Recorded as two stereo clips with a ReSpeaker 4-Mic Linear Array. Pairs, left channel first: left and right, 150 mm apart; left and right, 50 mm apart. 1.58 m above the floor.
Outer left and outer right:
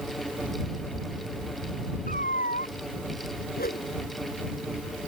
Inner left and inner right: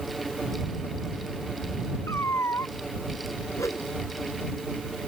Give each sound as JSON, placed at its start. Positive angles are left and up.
{"t": 2.1, "sound": "a cat meowing", "side_deg": 65}
{"t": 3.6, "sound": "a whoosh", "side_deg": 85}